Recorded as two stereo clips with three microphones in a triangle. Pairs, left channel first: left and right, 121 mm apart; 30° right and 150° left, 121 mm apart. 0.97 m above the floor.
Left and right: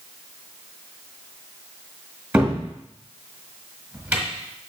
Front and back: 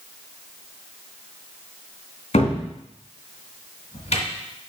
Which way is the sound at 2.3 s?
10° right.